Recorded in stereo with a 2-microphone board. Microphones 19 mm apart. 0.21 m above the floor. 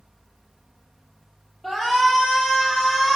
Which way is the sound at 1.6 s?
Centre (ahead or behind).